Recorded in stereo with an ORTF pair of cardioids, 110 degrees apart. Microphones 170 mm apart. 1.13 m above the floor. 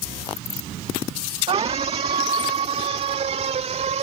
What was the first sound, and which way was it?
A scream, 35° right.